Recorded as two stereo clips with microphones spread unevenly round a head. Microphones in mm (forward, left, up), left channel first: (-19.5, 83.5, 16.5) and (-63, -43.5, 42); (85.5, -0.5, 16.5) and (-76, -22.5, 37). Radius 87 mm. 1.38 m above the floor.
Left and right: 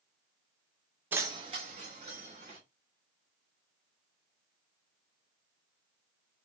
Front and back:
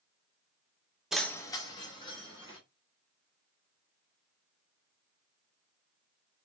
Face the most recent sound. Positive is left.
turn(degrees=-55)